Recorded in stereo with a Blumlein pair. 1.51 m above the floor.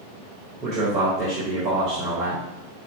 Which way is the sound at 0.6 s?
25° right.